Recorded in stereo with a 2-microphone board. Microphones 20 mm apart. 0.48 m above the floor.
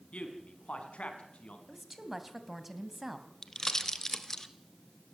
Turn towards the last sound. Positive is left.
turn(degrees=25)  # may be behind; listen again after turning